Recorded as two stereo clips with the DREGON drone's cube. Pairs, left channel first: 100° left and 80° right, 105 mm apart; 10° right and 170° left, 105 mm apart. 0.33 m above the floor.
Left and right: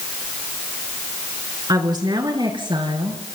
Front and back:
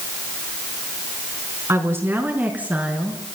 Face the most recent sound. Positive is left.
turn(degrees=-115)